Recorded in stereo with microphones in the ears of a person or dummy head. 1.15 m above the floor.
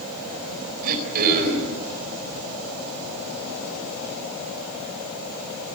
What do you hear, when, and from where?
0.8 s throat clearing: 50° right (ahead or behind), 4 m